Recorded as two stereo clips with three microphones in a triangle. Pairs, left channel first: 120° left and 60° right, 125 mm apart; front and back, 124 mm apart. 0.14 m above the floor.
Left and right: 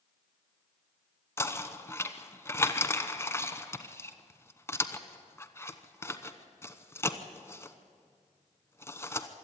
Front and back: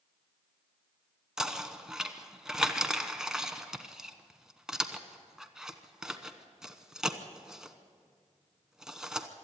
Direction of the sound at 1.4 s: 100° left.